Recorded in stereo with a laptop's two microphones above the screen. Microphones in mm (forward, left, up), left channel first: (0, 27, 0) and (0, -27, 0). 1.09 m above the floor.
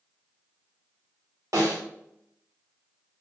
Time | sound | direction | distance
1.5 | a snare drum | 75° right (ahead or behind) | 1.9 m